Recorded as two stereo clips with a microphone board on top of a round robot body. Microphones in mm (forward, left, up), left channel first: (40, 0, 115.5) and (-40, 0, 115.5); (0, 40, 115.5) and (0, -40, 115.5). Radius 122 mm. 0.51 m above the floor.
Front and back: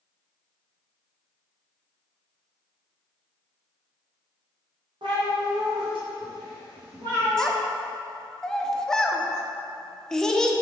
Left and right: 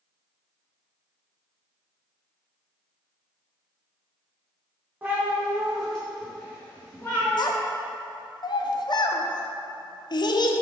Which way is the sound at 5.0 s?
155° right.